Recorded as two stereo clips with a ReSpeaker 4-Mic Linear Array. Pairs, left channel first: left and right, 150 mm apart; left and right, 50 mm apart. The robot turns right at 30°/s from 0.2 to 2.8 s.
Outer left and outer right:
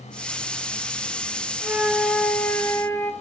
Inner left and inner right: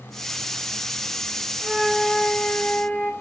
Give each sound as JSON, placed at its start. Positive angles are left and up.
{"t": 1.6, "sound": "a flute", "azimuth_deg": -15, "distance_m": 1.6}